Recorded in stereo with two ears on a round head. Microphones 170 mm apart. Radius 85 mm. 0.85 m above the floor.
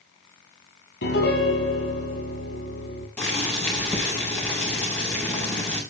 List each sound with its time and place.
1.0 s a piano: 60° left (ahead or behind), 6.5 m
3.2 s boiling: 10° left (ahead or behind), 7 m